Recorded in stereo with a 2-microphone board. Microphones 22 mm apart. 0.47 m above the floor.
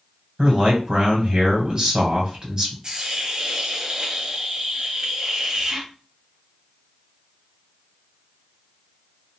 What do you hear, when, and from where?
0.4 s a man speaking: 30° right (ahead or behind), 1.7 m
2.8 s a hiss: 30° right (ahead or behind), 0.9 m